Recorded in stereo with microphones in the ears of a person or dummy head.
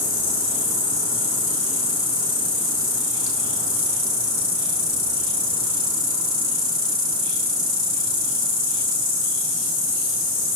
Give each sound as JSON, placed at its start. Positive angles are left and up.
{"t": 0.0, "sound": "an insect", "side_deg": 75, "distance_m": 5.0}